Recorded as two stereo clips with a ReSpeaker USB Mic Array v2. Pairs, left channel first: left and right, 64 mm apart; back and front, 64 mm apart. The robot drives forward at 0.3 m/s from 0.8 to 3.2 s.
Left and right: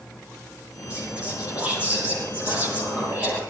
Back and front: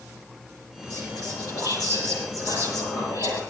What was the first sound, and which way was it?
Whispering, 160° right.